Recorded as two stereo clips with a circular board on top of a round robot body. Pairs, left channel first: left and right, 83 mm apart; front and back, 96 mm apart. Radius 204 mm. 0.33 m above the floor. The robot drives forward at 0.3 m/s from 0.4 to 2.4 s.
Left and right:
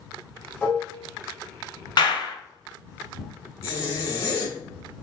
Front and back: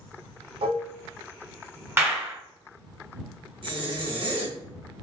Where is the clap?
115° left, 1.5 m; by 2.4 s 120° left, 1.5 m.